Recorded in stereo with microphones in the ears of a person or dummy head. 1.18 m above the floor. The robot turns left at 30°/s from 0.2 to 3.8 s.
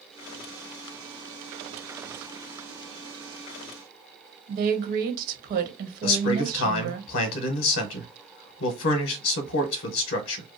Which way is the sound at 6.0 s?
70° left (ahead or behind).